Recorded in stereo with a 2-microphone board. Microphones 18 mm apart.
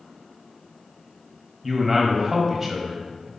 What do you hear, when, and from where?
1.6 s a man speaking: 10° right (ahead or behind), 1.3 m